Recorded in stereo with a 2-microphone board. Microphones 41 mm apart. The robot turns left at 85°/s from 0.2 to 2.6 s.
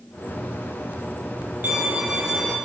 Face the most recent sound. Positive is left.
turn(degrees=165)